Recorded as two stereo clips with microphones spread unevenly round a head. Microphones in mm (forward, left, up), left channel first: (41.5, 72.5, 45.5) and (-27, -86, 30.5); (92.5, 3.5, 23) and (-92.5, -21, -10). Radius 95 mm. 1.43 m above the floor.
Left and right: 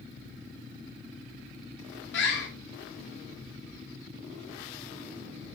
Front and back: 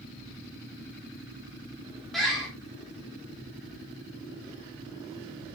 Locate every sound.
2.1 s a bird: 95° left, 4.5 m